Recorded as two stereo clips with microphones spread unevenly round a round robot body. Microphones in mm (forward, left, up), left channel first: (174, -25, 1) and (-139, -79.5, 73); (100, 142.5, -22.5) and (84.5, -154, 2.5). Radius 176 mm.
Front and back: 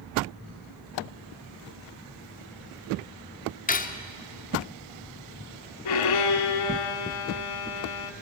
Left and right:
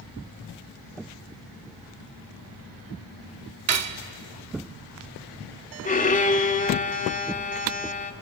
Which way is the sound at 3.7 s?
55° right.